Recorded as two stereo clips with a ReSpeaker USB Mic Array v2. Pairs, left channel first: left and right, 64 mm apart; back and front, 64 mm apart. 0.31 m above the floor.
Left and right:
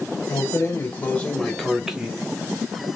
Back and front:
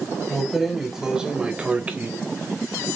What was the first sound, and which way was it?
Keys jangling, 90° left.